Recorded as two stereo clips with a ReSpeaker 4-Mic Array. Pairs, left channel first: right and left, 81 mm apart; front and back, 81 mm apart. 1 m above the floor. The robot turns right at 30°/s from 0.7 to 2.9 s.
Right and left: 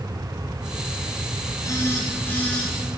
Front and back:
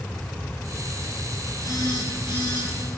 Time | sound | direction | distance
1.6 | a phone buzzing | 40° right | 3.5 m